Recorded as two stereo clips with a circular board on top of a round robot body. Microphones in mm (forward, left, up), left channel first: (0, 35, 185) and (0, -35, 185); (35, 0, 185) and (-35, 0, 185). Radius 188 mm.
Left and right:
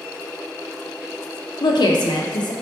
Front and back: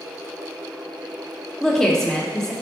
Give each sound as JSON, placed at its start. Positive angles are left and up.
{"t": 1.6, "sound": "a woman speaking", "azimuth_deg": 85, "distance_m": 0.5}